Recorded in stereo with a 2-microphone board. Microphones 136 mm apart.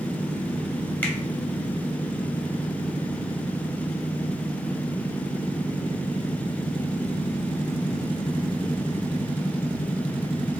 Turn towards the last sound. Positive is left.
turn(degrees=15)  # may be behind; listen again after turning